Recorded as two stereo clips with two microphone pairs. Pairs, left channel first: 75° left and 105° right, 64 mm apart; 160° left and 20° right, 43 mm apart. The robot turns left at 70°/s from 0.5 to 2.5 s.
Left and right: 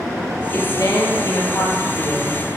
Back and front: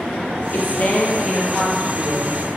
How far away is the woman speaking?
About 4 m.